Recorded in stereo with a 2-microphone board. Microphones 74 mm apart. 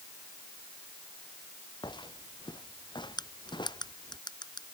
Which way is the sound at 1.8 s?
85° left.